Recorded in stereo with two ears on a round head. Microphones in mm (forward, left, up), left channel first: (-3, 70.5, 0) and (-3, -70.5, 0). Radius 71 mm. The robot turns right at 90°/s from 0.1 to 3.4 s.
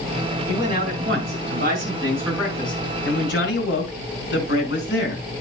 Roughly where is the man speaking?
Behind.